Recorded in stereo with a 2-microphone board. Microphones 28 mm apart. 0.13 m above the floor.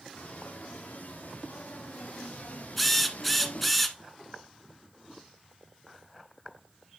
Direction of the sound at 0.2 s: 70° left (ahead or behind).